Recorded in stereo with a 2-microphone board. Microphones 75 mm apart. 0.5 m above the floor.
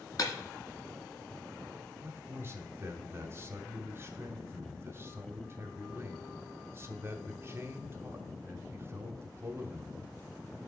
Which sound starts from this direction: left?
Breaking glass, at 0.2 s.